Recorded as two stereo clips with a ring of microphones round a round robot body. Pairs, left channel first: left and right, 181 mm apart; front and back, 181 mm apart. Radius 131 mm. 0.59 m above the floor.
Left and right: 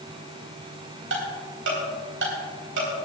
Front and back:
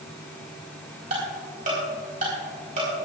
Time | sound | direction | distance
1.1 | ticking | 120° right | 3.5 m